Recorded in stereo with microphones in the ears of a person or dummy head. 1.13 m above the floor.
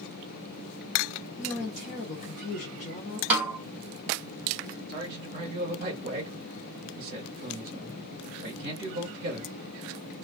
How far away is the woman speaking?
About 0.8 m.